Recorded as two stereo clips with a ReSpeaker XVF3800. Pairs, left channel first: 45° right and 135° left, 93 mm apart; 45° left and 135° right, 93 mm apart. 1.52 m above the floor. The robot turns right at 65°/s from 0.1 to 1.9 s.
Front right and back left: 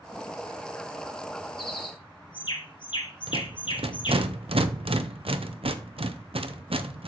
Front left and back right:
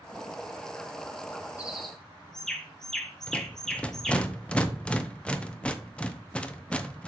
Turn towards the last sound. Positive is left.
turn(degrees=125)